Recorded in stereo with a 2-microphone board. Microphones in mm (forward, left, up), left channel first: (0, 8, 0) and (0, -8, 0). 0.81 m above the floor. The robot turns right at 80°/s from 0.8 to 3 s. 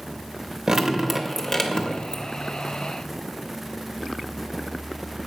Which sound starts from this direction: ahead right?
Dripping, at 0.7 s.